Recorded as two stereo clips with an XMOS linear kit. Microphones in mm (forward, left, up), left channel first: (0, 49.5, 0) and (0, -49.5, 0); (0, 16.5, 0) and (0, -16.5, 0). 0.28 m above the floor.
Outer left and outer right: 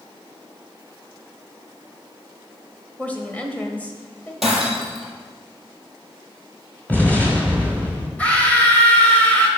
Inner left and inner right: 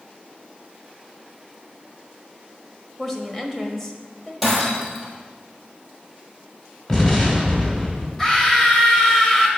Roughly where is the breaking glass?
Centre.